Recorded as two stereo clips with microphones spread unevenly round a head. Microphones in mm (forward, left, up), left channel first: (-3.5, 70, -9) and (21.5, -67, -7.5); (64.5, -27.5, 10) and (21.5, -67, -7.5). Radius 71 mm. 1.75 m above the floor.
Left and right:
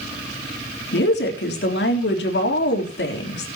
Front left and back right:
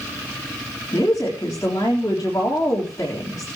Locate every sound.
0.9 s a woman speaking: 100° left, 3.5 m